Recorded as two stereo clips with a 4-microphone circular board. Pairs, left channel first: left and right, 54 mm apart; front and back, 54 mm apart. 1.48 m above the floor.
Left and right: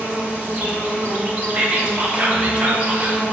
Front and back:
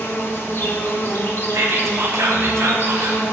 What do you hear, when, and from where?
0.0 s an insect: 30° right, 1.5 m
1.5 s whispering: 155° right, 1.4 m